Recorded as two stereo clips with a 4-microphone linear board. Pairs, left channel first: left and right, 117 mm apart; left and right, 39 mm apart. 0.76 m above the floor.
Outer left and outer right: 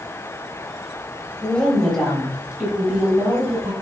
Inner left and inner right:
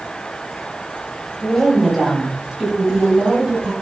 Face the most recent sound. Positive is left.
turn(degrees=-20)  # may be behind; listen again after turning